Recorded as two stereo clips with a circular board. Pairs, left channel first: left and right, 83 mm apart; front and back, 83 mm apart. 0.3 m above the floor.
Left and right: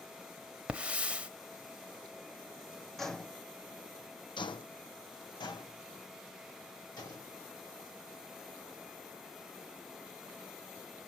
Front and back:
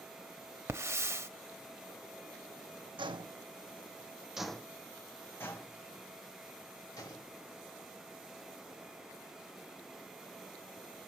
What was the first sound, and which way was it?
A hiss, 155° right.